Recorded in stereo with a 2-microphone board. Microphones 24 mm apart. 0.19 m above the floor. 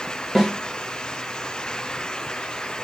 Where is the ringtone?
I don't hear a ringtone.